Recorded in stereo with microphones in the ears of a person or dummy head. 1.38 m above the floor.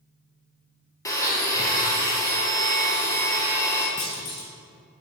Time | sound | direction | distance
1.1 | a blender | 20° left (ahead or behind) | 0.6 m
4.0 | a clunk | 40° left (ahead or behind) | 0.7 m